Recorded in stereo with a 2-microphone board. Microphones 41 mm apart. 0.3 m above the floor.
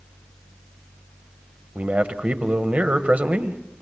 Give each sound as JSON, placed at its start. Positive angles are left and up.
{"t": 1.8, "sound": "a man speaking", "side_deg": -35, "distance_m": 1.2}